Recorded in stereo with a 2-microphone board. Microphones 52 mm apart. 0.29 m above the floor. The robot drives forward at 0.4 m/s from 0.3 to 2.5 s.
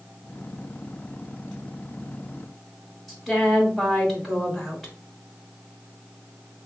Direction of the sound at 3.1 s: Centre (ahead or behind).